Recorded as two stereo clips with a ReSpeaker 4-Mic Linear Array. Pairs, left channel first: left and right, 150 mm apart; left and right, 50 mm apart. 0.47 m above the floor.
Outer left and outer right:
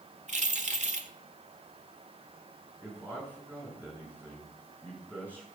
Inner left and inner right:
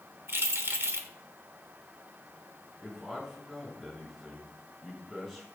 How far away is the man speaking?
About 7 m.